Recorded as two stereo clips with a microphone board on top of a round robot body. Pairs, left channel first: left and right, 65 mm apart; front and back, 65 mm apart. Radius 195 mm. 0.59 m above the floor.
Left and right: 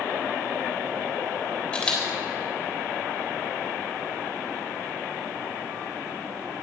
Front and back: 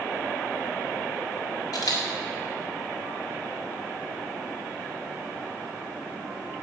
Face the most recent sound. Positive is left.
turn(degrees=15)